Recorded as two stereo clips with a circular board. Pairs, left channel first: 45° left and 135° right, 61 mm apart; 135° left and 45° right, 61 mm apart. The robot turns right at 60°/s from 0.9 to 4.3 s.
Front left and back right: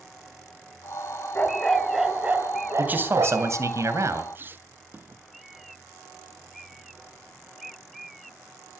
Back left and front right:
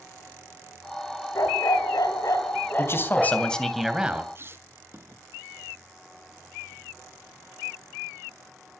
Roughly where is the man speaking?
Behind.